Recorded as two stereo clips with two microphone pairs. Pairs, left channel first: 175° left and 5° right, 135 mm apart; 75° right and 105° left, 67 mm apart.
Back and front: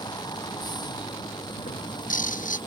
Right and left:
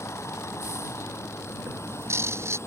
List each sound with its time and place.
0.0 s a vehicle: 125° right
1.6 s a bird: 155° left